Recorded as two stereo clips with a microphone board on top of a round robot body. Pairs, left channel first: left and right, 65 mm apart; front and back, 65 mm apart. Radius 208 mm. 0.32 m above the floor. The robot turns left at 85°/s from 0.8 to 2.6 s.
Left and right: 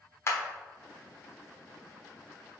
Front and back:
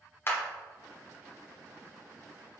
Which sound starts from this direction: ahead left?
A clap, at 0.3 s.